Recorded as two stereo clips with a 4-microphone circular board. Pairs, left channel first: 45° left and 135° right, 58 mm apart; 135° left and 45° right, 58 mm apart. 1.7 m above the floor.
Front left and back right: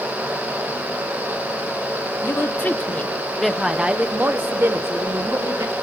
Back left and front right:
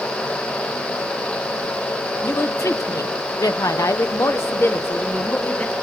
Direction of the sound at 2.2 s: 95° left.